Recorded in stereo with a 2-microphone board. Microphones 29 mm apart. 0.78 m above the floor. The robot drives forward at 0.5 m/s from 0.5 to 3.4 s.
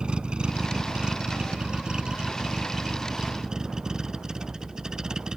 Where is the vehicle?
35° right (ahead or behind); by 5.4 s 25° right (ahead or behind).